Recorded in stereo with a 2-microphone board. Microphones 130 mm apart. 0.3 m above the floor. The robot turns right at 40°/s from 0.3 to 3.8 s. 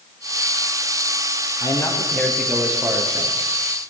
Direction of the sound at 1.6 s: 145° left.